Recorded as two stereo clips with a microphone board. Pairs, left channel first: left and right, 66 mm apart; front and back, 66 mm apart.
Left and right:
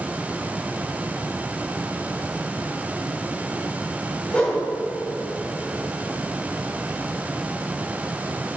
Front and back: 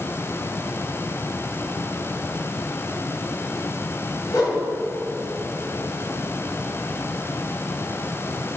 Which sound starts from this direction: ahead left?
A whoosh, at 4.3 s.